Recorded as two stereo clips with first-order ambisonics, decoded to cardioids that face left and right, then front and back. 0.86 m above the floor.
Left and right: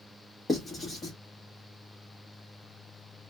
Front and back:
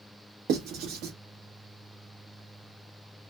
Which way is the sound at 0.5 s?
165° left.